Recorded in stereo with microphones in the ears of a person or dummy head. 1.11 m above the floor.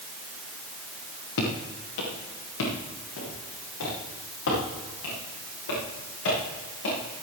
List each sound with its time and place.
1.4 s footsteps: 80° left, 6.5 m; by 7.2 s 70° left (ahead or behind), 13 m